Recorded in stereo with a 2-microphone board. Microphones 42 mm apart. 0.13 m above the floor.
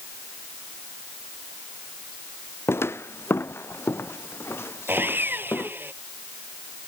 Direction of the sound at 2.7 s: 85° left.